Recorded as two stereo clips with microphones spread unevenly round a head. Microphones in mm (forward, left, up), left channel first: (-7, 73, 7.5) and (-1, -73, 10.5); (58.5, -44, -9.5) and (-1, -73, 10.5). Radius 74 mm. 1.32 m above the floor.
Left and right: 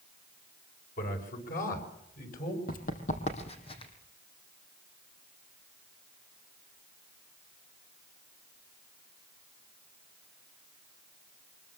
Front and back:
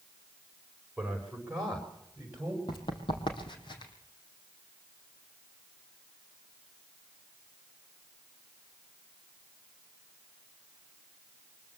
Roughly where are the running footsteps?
Ahead left.